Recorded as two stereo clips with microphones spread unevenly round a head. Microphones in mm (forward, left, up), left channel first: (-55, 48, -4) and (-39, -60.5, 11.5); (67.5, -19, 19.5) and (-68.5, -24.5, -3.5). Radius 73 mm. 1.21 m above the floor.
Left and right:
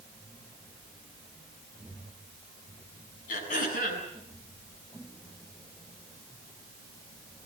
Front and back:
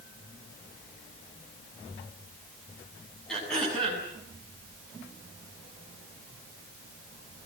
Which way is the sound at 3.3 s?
90° left.